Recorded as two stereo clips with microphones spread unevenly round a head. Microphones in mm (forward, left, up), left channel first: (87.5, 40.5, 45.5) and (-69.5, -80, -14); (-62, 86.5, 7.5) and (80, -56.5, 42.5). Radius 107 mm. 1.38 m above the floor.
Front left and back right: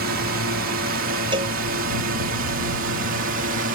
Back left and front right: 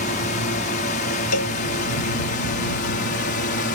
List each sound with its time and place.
0.0 s a drone: 175° right; by 3.7 s straight behind
1.3 s a cowbell: 150° left